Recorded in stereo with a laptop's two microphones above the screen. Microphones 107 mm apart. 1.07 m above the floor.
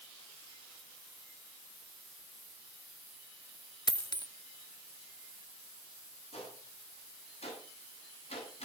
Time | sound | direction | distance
3.9 | a dropped coin | 40° left (ahead or behind) | 0.8 m
6.3 | a gunshot | 70° left (ahead or behind) | 8.5 m